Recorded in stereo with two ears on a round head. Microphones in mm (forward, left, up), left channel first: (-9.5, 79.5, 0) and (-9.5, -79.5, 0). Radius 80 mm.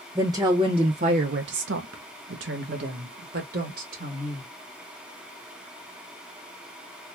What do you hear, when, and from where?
0.1 s a woman speaking: 15° right (ahead or behind), 1.0 m; by 4.5 s 45° right (ahead or behind), 2 m